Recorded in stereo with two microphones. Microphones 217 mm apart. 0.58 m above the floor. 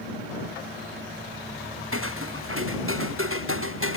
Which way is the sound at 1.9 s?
75° right (ahead or behind).